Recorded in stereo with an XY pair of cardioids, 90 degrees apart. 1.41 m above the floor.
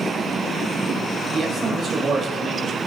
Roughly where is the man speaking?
Ahead right.